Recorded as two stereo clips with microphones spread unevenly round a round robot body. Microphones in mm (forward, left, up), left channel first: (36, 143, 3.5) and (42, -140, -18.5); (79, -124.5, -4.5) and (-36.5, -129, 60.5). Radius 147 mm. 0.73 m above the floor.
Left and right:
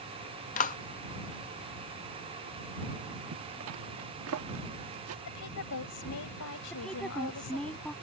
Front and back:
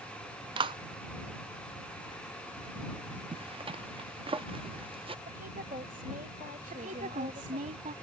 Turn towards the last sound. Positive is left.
turn(degrees=180)